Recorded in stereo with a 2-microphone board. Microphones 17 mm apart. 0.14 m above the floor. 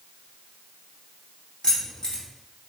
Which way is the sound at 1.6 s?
55° left (ahead or behind).